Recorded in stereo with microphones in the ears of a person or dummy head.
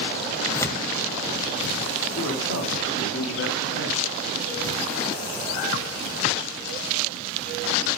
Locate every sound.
0.5 s tearing paper: 15° left (ahead or behind), 2 m
2.1 s a man speaking: 80° left, 3.5 m